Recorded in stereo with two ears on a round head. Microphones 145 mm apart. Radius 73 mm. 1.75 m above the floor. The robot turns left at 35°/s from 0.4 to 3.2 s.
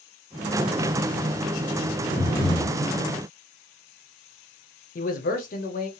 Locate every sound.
2.2 s breathing: 20° left (ahead or behind), 1.0 m; by 2.8 s 25° left (ahead or behind), 1.0 m
5.0 s a man speaking: 55° left (ahead or behind), 0.6 m